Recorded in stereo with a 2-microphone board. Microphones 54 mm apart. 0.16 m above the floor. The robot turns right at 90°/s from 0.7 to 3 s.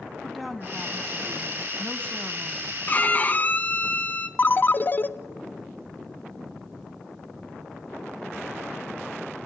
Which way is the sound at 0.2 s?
Centre (ahead or behind).